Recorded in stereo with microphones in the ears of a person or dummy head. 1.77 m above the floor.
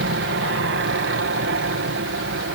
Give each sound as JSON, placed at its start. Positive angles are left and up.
{"t": 0.0, "sound": "an aircraft", "side_deg": -60}